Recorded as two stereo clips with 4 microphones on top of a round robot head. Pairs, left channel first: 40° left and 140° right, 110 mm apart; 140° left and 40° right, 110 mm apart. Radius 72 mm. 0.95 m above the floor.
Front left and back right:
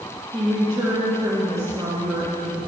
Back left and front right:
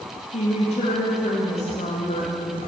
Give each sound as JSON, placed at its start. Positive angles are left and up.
{"t": 0.3, "sound": "a woman speaking", "azimuth_deg": 160, "distance_m": 1.9}